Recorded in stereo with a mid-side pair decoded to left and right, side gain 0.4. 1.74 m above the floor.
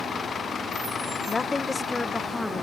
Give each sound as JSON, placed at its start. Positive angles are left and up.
{"t": 1.3, "sound": "a woman speaking", "azimuth_deg": 35}